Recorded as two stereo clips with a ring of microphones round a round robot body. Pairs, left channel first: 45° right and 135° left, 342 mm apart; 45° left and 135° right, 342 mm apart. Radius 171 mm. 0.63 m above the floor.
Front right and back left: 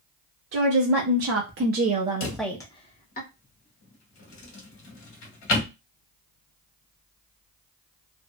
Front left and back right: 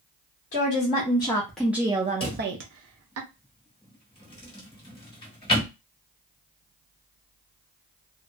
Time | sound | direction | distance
0.5 | a woman speaking | 110° left | 1.0 m
2.2 | a drawer | 30° right | 1.3 m